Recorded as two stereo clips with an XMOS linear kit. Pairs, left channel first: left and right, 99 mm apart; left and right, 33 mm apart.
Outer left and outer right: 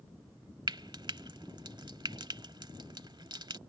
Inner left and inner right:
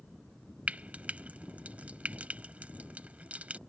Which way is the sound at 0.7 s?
45° right (ahead or behind).